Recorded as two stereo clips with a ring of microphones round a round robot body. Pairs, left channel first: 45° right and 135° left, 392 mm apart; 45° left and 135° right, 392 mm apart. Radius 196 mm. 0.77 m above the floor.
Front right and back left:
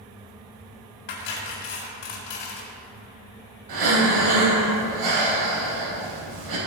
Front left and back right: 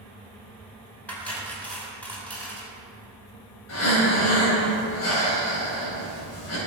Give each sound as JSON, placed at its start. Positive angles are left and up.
{"t": 1.1, "sound": "cutlery clinking", "azimuth_deg": -40, "distance_m": 3.5}
{"t": 3.7, "sound": "breathing", "azimuth_deg": 100, "distance_m": 4.5}